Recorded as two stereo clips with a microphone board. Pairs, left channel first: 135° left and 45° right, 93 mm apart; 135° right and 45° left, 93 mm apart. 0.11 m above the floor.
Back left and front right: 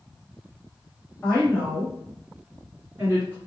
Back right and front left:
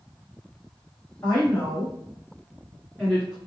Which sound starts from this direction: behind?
A woman speaking, at 1.2 s.